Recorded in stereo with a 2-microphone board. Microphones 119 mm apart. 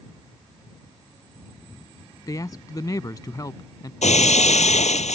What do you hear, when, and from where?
2.3 s a man speaking: 30° left (ahead or behind)
4.0 s breaking glass: 80° left